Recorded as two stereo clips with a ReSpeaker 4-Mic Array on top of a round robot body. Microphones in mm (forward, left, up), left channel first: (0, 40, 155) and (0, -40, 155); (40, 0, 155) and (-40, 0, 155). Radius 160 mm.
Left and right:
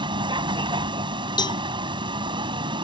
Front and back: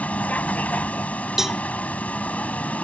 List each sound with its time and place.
0.0 s a vehicle: 70° right
1.4 s a cowbell: 95° left